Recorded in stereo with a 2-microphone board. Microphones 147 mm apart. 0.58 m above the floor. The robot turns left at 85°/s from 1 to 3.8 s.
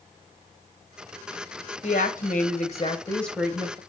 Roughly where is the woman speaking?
Behind left.